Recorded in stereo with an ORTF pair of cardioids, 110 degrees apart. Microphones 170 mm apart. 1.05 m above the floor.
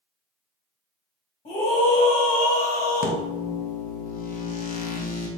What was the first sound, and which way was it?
A scream, 50° left.